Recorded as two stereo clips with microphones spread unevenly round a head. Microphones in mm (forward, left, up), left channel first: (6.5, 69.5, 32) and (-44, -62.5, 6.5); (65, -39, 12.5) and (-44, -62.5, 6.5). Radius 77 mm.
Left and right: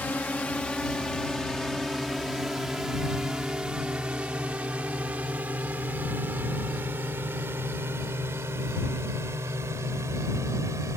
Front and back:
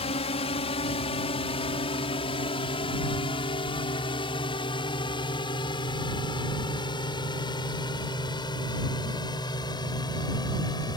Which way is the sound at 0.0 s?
10° right.